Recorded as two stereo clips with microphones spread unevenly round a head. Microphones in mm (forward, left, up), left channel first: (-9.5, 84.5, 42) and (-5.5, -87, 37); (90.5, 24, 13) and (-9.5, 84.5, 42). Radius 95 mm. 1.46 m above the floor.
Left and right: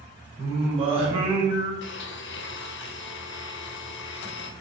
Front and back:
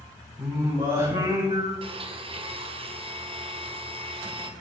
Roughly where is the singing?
Behind right.